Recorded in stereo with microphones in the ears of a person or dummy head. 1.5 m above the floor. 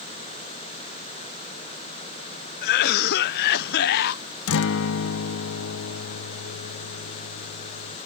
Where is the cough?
50° left (ahead or behind).